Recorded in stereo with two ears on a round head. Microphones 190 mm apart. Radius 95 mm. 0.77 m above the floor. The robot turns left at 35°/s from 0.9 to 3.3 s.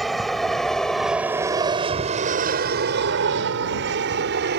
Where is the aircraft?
Centre (ahead or behind); by 4.6 s 50° right (ahead or behind).